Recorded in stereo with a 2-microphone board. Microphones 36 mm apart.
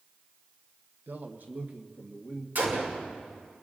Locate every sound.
1.1 s a man speaking: 70° right (ahead or behind), 1.0 m; by 2.5 s 40° right (ahead or behind), 1.9 m
2.5 s a gunshot: 70° right (ahead or behind), 2.5 m